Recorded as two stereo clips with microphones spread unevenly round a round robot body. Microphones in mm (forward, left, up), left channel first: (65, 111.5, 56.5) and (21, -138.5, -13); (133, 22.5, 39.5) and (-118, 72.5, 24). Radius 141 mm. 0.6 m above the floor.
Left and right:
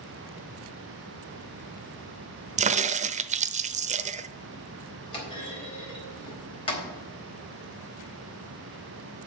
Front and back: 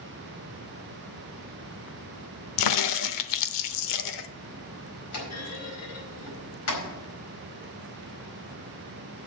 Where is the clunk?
5° left, 4.5 m.